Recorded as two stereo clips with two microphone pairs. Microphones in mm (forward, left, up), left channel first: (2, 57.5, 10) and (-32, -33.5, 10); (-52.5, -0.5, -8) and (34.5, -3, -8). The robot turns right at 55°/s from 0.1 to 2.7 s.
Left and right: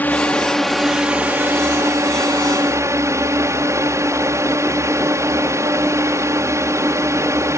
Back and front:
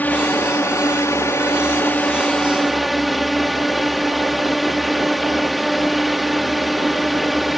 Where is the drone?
125° left; by 7.6 s 90° right.